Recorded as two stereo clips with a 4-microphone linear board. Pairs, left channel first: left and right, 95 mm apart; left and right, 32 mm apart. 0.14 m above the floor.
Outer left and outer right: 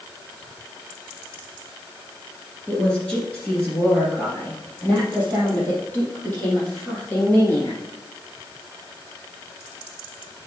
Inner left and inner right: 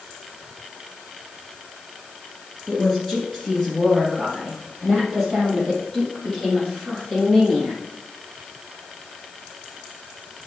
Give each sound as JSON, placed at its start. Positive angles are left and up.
{"t": 2.7, "sound": "a woman speaking", "side_deg": 10, "distance_m": 2.0}